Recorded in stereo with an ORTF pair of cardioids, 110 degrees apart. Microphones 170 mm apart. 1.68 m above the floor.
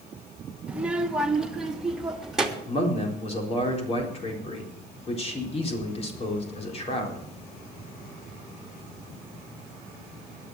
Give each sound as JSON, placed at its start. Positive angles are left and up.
{"t": 0.7, "sound": "a child speaking", "azimuth_deg": -5, "distance_m": 1.4}
{"t": 2.7, "sound": "a man speaking", "azimuth_deg": 40, "distance_m": 4.0}